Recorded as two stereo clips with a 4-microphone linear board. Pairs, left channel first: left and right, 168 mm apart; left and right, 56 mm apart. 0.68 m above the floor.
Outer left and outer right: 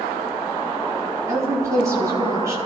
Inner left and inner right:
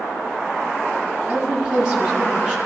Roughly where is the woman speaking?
Centre.